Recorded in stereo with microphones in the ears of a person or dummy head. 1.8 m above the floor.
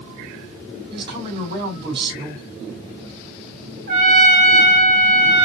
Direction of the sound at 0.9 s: 35° right (ahead or behind).